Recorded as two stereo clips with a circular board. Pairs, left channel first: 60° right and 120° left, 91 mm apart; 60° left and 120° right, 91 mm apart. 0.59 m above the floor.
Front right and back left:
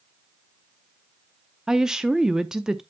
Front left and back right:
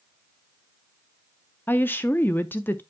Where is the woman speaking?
45° left, 0.6 m.